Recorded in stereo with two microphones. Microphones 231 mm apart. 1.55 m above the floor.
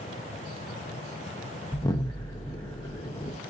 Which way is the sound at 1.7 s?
15° left (ahead or behind).